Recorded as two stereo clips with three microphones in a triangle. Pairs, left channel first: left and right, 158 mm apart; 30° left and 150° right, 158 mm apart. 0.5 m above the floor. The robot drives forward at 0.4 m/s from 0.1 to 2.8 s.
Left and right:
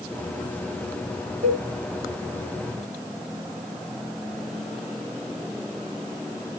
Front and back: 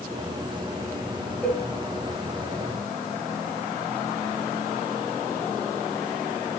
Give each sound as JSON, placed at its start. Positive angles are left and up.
{"t": 1.4, "sound": "a cowbell", "azimuth_deg": -55, "distance_m": 1.9}